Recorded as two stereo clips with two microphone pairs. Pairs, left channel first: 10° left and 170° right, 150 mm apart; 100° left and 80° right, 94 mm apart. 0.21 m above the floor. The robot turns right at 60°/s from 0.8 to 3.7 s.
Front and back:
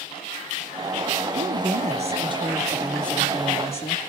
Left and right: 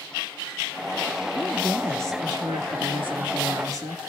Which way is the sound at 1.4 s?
175° right.